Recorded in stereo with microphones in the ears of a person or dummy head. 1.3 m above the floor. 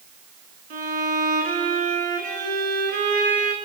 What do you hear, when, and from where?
0.7 s a violin: 45° right (ahead or behind), 5 m